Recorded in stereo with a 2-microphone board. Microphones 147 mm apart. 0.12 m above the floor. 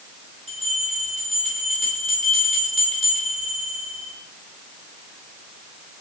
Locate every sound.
0.5 s a bell: 45° right (ahead or behind), 6.5 m